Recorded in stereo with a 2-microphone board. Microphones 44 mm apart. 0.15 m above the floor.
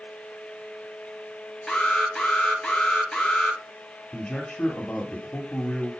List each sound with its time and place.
1.7 s an alarm: 5° left (ahead or behind), 2 m
4.1 s a man speaking: 10° left (ahead or behind), 2.5 m